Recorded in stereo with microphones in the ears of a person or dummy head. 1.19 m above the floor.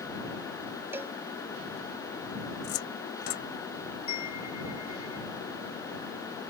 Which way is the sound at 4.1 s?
40° left (ahead or behind).